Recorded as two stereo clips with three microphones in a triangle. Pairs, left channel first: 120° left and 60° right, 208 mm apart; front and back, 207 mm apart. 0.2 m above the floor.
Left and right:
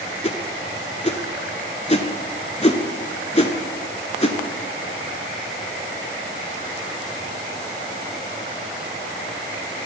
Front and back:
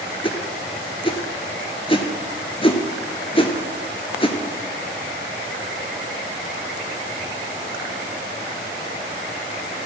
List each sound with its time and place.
0.2 s a whoosh: 60° left, 0.6 m